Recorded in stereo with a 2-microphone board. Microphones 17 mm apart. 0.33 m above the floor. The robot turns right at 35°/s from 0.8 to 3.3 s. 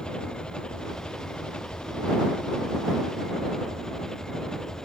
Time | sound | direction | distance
0.0 | an engine running | 60° left | ?